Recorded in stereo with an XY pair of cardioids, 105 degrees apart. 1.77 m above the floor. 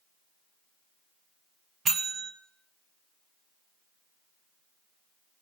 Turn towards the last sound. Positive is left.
turn(degrees=-45)